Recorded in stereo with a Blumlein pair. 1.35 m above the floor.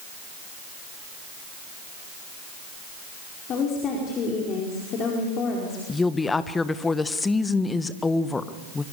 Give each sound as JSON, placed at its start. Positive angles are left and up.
{"t": 3.5, "sound": "a woman speaking", "azimuth_deg": 30, "distance_m": 4.5}
{"t": 5.9, "sound": "a woman speaking", "azimuth_deg": 10, "distance_m": 1.4}